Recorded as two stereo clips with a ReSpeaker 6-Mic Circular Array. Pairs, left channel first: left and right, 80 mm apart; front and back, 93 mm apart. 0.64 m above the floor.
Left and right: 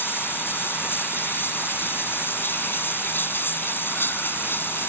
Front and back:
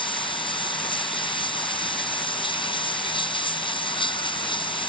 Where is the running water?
25° left.